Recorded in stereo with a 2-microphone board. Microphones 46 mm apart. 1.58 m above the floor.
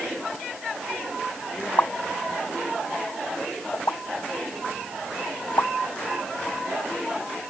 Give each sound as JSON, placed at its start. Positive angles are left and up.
{"t": 1.8, "sound": "a pop", "side_deg": 85}